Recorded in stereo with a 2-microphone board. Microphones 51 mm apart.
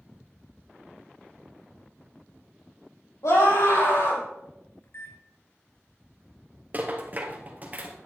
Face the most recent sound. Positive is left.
turn(degrees=-35)  # may be behind; listen again after turning